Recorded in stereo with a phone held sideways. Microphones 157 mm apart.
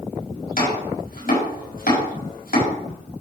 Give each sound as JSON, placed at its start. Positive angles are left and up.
{"t": 0.6, "sound": "chopping", "side_deg": 65, "distance_m": 6.5}